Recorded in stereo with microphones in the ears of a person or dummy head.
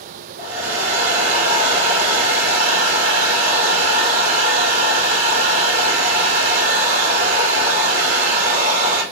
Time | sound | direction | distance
0.4 | a hair dryer | 75° right (ahead or behind) | 2 m